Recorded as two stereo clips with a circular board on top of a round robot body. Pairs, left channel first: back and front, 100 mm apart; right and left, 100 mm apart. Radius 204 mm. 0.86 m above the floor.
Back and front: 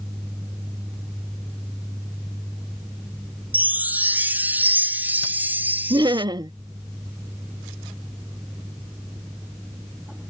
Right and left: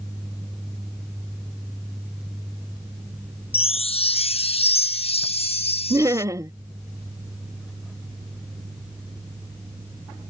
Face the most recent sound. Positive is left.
turn(degrees=35)